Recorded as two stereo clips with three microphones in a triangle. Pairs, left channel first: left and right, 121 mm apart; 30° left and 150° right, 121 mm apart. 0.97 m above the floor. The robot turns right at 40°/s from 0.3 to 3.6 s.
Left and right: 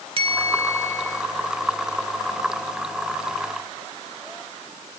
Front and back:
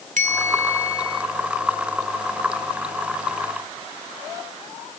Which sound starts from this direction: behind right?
A bell, at 0.2 s.